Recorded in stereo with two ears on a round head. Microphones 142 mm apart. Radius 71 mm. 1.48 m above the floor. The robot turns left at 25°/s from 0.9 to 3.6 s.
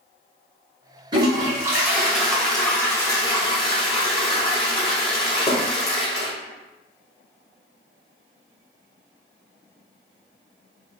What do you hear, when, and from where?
1.1 s a toilet flushing: 150° right, 1.1 m; by 6.3 s 145° left, 1.1 m